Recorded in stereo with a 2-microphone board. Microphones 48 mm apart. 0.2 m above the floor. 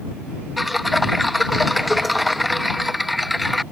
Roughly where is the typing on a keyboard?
Centre.